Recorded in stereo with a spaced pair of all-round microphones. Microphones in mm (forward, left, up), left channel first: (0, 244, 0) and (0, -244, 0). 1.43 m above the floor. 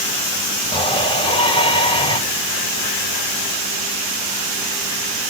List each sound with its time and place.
0.7 s a shout: 10° left (ahead or behind), 5.5 m